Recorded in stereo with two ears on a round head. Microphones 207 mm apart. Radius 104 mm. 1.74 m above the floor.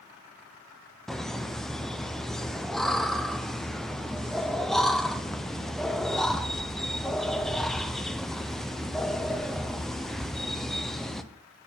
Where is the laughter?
Centre (ahead or behind), 0.5 m.